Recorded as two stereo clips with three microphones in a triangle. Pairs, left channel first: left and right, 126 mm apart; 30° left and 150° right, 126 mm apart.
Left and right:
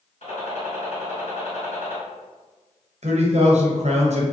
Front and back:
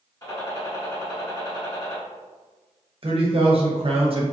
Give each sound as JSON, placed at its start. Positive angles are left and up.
{"t": 0.2, "sound": "a gunshot", "azimuth_deg": 90, "distance_m": 1.9}
{"t": 3.0, "sound": "a man speaking", "azimuth_deg": -110, "distance_m": 0.7}